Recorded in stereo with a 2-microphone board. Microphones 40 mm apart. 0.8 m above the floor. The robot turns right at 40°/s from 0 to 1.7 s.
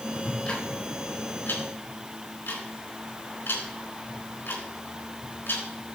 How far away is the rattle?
I don't hear a rattle.